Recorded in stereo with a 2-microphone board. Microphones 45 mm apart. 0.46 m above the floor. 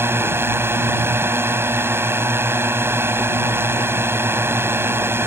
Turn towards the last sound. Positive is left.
turn(degrees=-65)  # may be behind; listen again after turning